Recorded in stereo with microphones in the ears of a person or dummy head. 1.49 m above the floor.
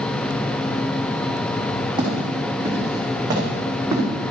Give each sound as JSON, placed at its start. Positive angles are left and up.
{"t": 2.0, "sound": "footsteps", "side_deg": -30, "distance_m": 4.5}